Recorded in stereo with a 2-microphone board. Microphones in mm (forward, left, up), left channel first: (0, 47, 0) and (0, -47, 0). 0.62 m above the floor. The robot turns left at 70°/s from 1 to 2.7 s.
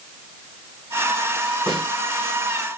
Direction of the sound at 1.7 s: 55° right (ahead or behind).